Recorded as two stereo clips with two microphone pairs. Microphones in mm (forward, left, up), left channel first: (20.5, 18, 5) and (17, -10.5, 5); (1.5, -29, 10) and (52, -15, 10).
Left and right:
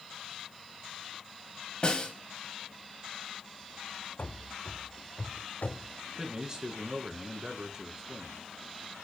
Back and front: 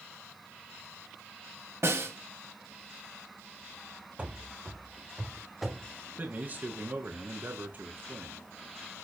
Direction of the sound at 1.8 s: 35° left.